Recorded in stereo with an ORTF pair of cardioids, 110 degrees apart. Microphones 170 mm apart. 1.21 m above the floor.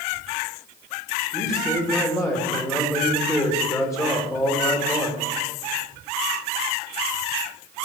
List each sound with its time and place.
1.3 s a man speaking: 20° left, 2.5 m